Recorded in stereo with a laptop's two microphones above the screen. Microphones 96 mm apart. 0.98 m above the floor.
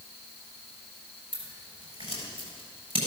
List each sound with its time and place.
1.3 s scissors: 85° right, 6.5 m